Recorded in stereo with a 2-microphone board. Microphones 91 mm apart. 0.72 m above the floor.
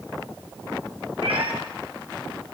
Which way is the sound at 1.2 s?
75° right (ahead or behind).